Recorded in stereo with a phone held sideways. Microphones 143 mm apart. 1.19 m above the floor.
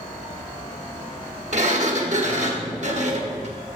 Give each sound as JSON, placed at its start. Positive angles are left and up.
{"t": 1.5, "sound": "a sliding door", "side_deg": -55, "distance_m": 1.1}